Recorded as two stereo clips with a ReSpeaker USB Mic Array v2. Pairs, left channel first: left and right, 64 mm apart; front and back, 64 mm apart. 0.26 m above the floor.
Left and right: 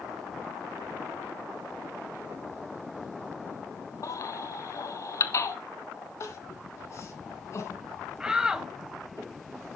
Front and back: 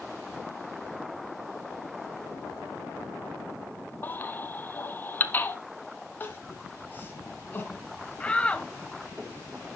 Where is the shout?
35° right, 1.0 m.